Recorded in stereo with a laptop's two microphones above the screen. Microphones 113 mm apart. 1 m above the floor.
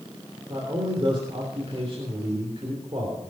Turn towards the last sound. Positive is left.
turn(degrees=-45)  # may be behind; listen again after turning